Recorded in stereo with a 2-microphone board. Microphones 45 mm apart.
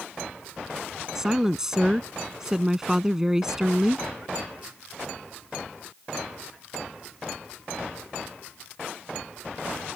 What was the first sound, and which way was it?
A woman speaking, 15° right (ahead or behind).